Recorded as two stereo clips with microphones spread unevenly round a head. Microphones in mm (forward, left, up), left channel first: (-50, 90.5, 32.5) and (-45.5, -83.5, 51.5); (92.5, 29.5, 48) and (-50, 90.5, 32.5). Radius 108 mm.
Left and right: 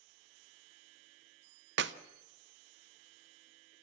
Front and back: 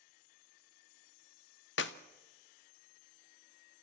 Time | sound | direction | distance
1.8 | a clap | 50° right | 0.6 m